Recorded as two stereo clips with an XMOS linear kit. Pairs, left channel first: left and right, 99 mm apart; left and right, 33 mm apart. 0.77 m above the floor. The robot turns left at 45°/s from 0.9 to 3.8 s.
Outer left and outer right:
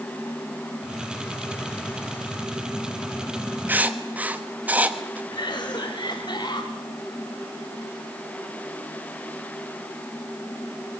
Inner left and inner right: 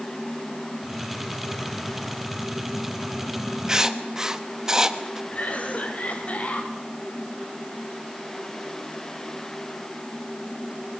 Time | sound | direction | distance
3.7 | writing | 20° right (ahead or behind) | 1.2 m
5.3 | a cough | 45° left (ahead or behind) | 3.5 m